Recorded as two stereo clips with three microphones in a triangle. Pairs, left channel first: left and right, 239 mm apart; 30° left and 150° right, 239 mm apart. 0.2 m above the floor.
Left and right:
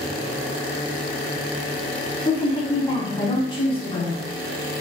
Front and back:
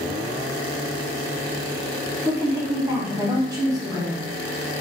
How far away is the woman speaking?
About 1.2 m.